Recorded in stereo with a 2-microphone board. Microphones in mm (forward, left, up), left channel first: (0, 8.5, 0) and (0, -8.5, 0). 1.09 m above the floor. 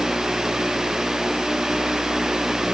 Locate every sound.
Only background noise.